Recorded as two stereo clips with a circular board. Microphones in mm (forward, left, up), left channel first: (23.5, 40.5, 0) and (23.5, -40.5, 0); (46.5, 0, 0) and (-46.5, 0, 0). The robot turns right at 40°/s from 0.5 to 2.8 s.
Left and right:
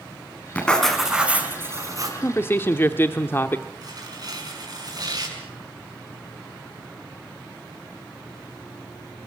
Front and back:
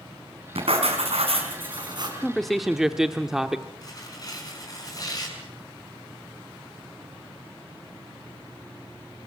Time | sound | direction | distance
0.6 | writing | 165° left | 5.5 m
2.2 | a man speaking | 80° left | 1.0 m
3.8 | tearing paper | 50° right | 6 m